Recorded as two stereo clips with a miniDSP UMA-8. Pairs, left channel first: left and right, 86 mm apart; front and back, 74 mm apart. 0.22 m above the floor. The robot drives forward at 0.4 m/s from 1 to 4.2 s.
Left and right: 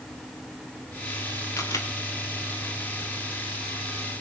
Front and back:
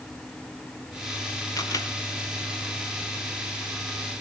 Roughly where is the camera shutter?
Ahead left.